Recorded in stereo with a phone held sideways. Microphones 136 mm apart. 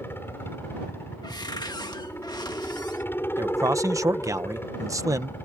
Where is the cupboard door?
35° left (ahead or behind).